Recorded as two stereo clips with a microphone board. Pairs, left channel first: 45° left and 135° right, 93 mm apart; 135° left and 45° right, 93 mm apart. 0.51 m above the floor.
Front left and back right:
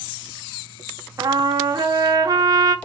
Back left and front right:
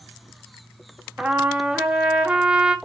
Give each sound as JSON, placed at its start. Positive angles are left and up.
{"t": 1.2, "sound": "a trumpet", "azimuth_deg": -115, "distance_m": 0.8}